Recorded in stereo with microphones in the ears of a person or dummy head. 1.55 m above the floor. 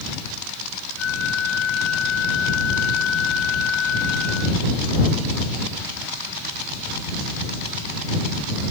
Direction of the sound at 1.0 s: 75° left (ahead or behind).